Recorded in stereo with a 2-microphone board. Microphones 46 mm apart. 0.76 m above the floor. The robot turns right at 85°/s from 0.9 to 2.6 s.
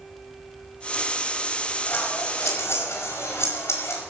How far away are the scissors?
About 5 m.